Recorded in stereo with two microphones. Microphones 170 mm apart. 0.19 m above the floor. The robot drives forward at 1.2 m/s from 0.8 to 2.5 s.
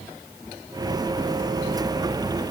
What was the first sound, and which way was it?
Only background noise.